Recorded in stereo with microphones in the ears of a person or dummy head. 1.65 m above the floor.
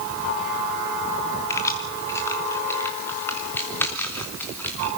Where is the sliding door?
I don't hear a sliding door.